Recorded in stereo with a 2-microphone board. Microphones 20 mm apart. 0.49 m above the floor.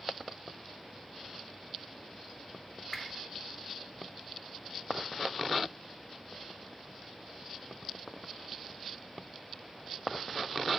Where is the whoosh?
25° left (ahead or behind), 1.0 m.